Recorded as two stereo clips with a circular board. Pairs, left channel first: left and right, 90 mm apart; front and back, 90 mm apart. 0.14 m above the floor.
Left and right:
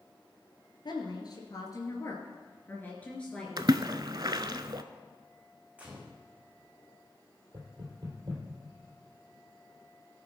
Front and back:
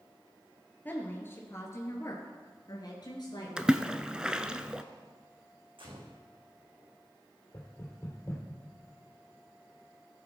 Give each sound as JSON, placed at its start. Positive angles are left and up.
{"t": 0.8, "sound": "a woman speaking", "azimuth_deg": 65, "distance_m": 2.0}
{"t": 3.6, "sound": "a splash", "azimuth_deg": -100, "distance_m": 0.5}
{"t": 5.8, "sound": "a gunshot", "azimuth_deg": -165, "distance_m": 2.5}
{"t": 7.5, "sound": "knocking", "azimuth_deg": -55, "distance_m": 3.0}